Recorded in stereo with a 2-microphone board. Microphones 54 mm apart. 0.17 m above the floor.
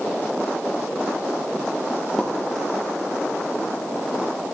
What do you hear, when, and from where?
2.2 s a pop: 5° right (ahead or behind), 8.5 m